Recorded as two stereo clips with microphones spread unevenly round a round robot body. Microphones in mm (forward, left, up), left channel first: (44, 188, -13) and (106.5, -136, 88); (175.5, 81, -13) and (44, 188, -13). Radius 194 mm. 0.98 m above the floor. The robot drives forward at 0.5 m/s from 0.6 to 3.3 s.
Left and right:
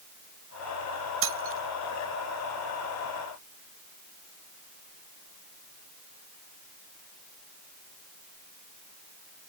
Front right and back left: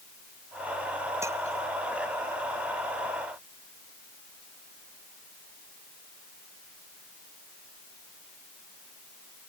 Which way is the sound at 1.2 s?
135° right.